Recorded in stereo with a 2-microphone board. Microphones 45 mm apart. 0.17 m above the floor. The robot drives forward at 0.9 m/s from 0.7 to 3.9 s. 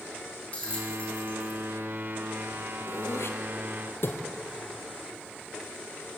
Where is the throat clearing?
70° left (ahead or behind), 2.5 m; by 4.2 s 55° left (ahead or behind), 3 m.